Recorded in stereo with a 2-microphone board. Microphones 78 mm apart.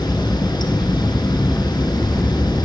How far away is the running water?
About 1.0 m.